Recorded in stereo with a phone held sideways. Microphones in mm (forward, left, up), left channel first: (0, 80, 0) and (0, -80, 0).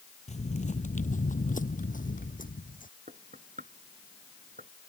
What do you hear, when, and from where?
0.3 s footsteps: 45° left (ahead or behind); by 2.9 s 55° left (ahead or behind)
3.1 s knocking: 55° right (ahead or behind)